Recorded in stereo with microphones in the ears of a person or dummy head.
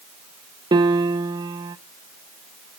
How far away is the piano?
About 0.6 m.